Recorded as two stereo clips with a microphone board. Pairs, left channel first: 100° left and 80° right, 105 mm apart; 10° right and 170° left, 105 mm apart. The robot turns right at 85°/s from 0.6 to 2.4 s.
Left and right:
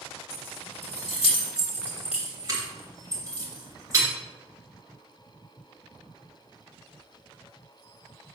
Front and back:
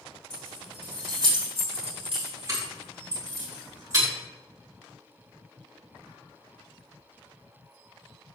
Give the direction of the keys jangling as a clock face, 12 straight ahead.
10 o'clock.